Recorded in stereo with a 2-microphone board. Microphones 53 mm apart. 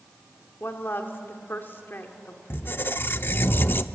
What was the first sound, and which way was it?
A woman speaking, 40° left (ahead or behind).